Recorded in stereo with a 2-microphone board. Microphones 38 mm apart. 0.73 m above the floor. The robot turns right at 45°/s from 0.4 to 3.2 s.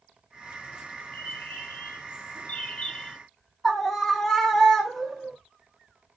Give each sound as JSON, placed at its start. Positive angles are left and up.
{"t": 1.1, "sound": "a bird", "azimuth_deg": 60, "distance_m": 0.9}
{"t": 3.6, "sound": "a scream", "side_deg": 5, "distance_m": 0.5}